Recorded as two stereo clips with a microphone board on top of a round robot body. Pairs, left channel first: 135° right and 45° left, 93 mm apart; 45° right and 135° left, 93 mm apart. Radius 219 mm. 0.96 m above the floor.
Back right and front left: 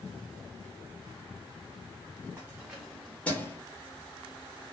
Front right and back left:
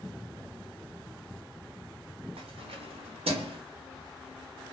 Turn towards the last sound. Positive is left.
turn(degrees=155)